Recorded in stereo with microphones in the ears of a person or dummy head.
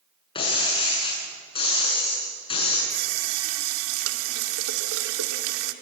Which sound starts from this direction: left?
Breaking glass, at 0.3 s.